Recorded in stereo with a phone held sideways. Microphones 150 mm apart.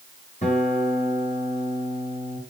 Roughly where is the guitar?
Left.